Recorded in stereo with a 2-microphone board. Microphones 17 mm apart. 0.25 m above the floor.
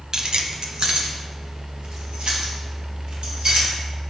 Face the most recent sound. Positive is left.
turn(degrees=-80)